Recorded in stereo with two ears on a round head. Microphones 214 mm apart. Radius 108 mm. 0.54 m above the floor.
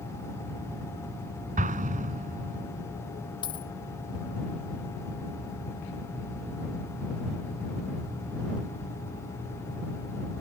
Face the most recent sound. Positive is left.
turn(degrees=20)  # may be behind; listen again after turning